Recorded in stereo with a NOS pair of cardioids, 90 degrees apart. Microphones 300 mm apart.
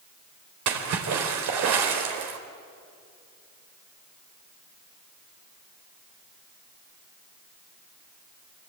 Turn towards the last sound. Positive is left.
turn(degrees=-65)